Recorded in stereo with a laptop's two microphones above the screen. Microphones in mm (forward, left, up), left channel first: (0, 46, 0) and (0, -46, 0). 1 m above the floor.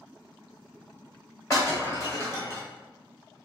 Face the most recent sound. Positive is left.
turn(degrees=35)  # may be behind; listen again after turning